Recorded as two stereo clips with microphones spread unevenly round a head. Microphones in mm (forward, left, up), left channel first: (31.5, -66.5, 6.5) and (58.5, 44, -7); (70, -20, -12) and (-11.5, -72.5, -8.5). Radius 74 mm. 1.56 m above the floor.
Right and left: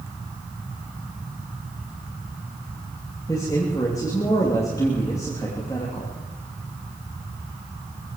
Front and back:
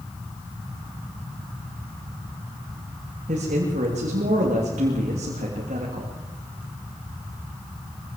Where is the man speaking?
175° right, 3 m.